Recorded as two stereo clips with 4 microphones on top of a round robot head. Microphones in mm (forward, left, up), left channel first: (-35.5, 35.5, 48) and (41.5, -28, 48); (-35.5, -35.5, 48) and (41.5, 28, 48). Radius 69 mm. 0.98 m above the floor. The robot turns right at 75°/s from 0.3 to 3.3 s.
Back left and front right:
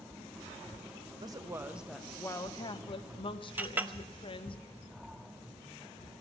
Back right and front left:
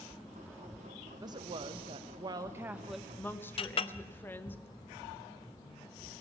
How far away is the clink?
About 0.7 m.